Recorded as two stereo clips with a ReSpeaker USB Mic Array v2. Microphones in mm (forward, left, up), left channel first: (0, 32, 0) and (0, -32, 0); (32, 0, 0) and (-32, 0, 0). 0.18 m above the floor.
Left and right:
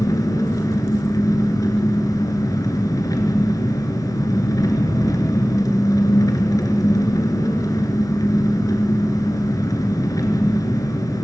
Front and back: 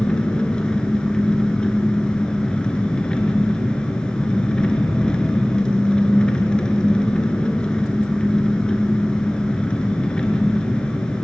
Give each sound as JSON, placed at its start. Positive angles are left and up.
{"t": 0.0, "sound": "an engine running", "azimuth_deg": 75, "distance_m": 1.9}